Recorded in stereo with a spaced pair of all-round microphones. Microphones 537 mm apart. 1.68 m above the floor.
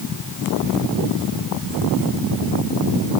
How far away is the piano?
No piano in this recording.